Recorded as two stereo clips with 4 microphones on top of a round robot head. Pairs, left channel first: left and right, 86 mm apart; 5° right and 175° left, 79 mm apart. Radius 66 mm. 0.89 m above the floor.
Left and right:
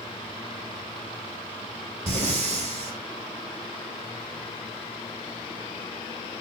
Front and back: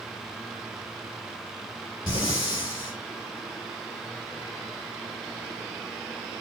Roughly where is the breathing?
Ahead right.